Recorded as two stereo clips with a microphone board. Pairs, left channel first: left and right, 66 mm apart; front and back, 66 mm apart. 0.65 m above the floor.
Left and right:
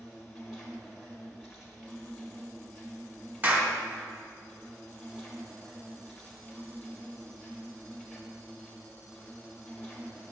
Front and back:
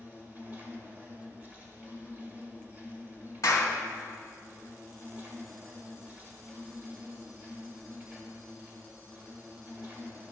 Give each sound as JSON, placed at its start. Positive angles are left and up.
{"t": 0.0, "sound": "an insect", "azimuth_deg": -170, "distance_m": 1.7}
{"t": 3.4, "sound": "a clap", "azimuth_deg": -35, "distance_m": 1.7}